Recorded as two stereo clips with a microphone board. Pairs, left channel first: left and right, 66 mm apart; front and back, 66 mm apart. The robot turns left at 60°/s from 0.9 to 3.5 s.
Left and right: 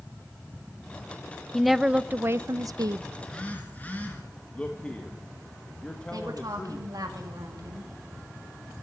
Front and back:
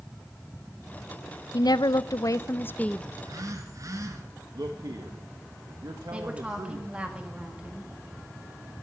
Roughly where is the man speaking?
Behind.